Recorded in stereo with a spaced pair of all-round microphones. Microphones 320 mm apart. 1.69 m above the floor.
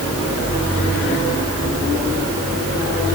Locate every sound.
Only background noise.